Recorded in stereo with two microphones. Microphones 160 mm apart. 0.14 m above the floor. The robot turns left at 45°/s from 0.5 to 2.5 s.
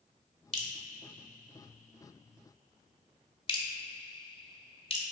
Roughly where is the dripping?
Left.